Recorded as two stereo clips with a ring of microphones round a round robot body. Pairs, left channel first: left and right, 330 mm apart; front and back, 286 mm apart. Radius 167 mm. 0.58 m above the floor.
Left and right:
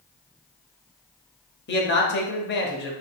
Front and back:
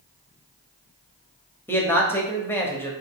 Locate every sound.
1.7 s a man speaking: 75° left, 0.8 m